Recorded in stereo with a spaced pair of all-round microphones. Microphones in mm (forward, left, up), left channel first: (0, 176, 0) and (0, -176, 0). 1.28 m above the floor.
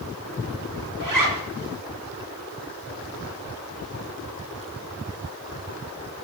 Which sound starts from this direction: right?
A zipper, at 1.0 s.